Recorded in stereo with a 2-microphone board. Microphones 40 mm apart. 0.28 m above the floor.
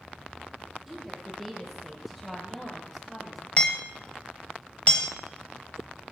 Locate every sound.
0.9 s a woman speaking: 5° right (ahead or behind), 8.5 m; by 3.5 s centre (ahead or behind), 5.5 m
3.6 s hammering: 35° left (ahead or behind), 1.3 m